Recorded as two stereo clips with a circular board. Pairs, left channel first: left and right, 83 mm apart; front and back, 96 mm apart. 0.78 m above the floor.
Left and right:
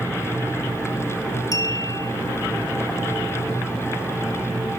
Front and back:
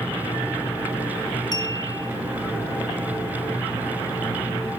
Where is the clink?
45° left, 2.5 m.